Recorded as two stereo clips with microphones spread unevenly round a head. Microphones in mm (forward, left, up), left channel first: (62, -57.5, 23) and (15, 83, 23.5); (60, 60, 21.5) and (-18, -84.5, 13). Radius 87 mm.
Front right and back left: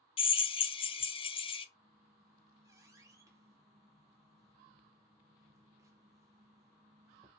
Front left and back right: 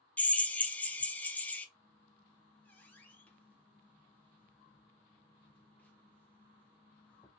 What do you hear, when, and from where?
0.2 s a drill: 20° right, 0.6 m
1.8 s a squeak: 115° left, 0.6 m